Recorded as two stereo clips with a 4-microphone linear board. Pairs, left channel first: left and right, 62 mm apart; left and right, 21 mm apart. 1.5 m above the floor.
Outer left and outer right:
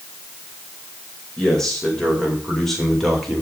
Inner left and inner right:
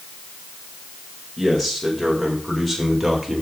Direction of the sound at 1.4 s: 10° left (ahead or behind).